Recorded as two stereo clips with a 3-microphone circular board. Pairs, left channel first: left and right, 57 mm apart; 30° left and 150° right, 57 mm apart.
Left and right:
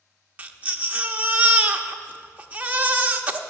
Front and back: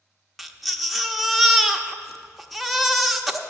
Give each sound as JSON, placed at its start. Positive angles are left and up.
{"t": 0.4, "sound": "a baby crying", "azimuth_deg": -60, "distance_m": 0.8}